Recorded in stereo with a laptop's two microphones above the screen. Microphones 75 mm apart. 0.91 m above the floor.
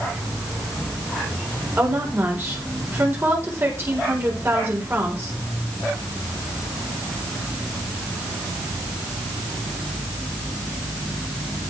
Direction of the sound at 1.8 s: 35° right (ahead or behind).